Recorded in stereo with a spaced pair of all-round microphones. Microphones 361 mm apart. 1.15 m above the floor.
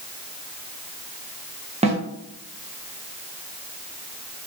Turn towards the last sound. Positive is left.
turn(degrees=-15)  # may be behind; listen again after turning